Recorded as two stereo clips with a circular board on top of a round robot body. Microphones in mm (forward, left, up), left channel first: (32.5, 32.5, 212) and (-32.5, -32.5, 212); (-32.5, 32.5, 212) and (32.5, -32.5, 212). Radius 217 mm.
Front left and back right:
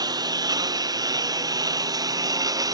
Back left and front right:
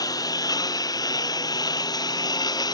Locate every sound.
0.0 s a lawn mower: straight behind